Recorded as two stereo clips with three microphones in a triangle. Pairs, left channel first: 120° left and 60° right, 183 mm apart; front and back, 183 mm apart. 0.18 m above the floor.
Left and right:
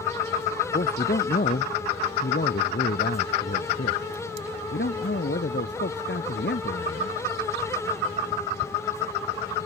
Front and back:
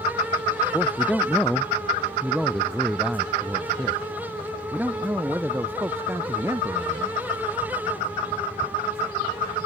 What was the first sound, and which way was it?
A man speaking, 85° left.